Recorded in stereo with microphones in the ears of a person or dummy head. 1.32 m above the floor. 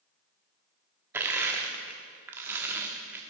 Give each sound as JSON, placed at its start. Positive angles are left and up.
{"t": 1.1, "sound": "crushing", "side_deg": -10, "distance_m": 1.2}